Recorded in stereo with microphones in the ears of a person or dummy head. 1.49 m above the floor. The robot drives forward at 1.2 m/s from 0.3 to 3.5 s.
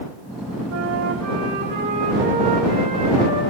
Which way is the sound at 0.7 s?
75° right (ahead or behind).